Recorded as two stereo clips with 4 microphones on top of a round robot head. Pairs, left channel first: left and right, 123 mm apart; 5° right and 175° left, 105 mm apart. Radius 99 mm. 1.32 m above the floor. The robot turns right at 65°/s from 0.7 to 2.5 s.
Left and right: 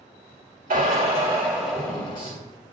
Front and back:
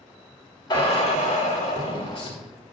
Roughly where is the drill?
Ahead right.